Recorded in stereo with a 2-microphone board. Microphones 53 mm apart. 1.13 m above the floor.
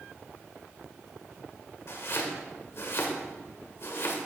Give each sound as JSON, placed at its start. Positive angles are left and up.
{"t": 1.9, "sound": "chopping", "side_deg": 60, "distance_m": 2.0}